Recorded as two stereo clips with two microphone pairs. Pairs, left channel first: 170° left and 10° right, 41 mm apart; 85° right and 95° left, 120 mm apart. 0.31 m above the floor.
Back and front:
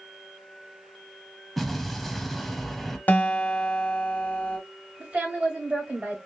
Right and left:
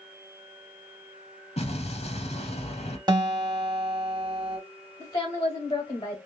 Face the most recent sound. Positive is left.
turn(degrees=-45)